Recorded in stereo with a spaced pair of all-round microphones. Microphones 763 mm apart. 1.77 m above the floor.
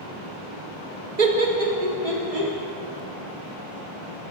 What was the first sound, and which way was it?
Laughter, 65° right (ahead or behind).